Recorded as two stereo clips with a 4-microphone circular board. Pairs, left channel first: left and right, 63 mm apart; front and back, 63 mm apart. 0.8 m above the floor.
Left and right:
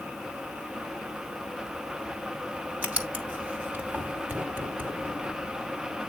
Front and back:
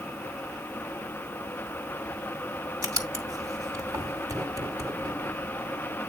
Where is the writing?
155° right, 2.5 m.